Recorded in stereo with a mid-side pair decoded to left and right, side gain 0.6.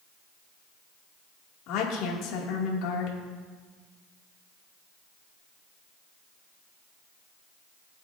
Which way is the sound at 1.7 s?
70° left.